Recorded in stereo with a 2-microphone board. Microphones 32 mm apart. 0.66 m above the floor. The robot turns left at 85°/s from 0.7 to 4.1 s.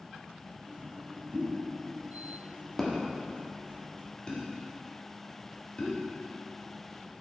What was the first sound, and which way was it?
A pop, 45° right (ahead or behind).